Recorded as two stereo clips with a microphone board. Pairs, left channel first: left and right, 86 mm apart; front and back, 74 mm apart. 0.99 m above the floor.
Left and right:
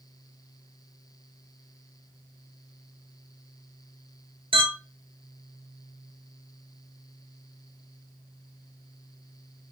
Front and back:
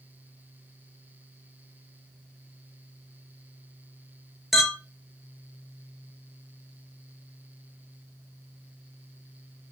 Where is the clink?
95° right, 1.0 m.